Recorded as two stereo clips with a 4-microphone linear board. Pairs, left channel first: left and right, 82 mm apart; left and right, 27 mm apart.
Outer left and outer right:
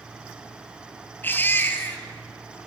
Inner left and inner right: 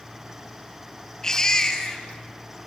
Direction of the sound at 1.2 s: 25° left (ahead or behind).